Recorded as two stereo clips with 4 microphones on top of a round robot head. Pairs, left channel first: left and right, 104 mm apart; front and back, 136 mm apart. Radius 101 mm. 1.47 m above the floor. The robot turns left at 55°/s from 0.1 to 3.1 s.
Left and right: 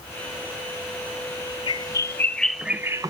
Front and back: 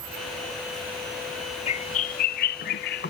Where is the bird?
50° left, 0.5 m; by 3.1 s 30° right, 0.5 m.